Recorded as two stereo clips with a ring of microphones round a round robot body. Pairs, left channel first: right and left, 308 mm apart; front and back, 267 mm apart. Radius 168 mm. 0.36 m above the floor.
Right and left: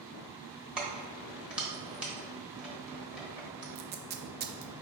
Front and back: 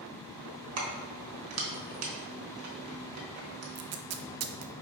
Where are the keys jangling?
175° left, 1.1 m.